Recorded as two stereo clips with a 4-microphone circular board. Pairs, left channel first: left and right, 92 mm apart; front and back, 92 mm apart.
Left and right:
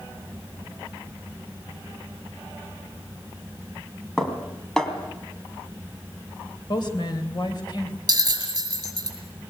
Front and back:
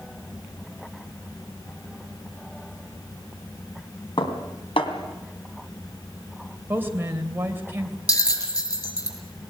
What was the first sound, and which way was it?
Dishes clattering, 5° left.